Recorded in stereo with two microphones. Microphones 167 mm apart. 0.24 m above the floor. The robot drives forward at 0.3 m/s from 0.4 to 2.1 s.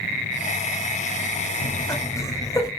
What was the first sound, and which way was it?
Laughter, 20° left (ahead or behind).